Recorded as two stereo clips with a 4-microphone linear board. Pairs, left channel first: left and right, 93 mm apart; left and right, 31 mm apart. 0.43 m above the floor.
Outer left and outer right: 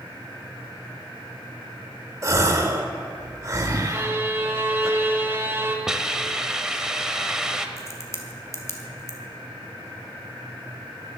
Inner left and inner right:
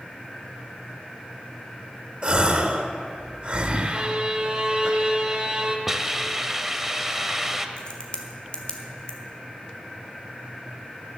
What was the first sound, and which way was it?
A gasp, 35° right (ahead or behind).